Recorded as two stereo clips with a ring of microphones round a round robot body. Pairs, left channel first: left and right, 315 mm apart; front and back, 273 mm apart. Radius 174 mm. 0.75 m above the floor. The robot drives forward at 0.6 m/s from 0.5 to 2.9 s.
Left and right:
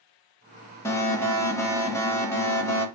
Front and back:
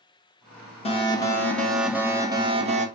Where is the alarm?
20° left, 1.6 m; by 2.9 s 165° left, 1.7 m.